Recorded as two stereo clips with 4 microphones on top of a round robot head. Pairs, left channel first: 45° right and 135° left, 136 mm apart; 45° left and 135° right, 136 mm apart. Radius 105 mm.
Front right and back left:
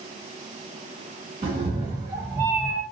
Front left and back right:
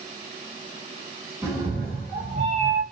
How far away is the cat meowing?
About 1.0 m.